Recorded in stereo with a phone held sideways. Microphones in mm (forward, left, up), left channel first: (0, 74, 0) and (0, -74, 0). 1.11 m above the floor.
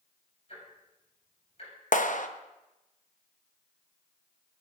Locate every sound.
0.5 s ticking: 50° left (ahead or behind), 6.5 m
1.9 s a clap: 65° left (ahead or behind), 0.7 m